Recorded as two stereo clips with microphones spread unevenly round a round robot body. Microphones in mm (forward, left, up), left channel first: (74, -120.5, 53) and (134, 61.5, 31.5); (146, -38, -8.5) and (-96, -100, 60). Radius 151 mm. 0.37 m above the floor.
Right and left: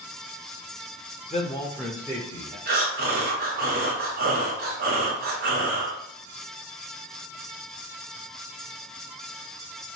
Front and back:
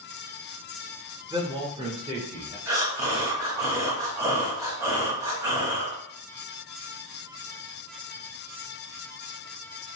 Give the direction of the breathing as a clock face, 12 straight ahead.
8 o'clock.